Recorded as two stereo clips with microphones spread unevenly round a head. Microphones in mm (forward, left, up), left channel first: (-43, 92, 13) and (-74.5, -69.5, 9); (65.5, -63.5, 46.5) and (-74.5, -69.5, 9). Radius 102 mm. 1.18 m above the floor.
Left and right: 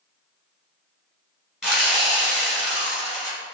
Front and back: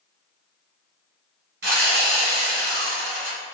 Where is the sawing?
170° left, 1.7 m.